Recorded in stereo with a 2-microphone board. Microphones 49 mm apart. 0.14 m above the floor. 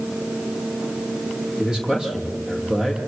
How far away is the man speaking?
About 5 m.